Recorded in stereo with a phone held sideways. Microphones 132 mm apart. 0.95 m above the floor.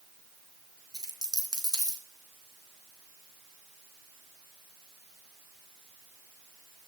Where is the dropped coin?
30° right (ahead or behind), 3 m.